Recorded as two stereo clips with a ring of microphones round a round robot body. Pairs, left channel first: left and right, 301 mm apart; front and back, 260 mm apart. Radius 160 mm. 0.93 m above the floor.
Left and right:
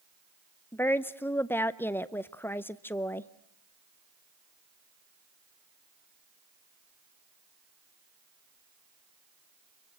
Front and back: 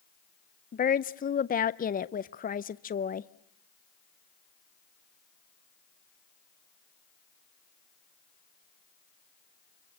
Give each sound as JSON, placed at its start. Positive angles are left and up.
{"t": 0.7, "sound": "a woman speaking", "azimuth_deg": 15, "distance_m": 0.6}